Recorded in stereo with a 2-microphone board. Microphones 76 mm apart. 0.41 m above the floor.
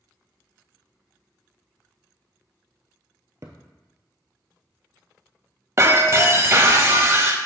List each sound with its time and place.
3.4 s a thud: 45° right (ahead or behind), 0.9 m
5.8 s breaking glass: 40° right (ahead or behind), 0.7 m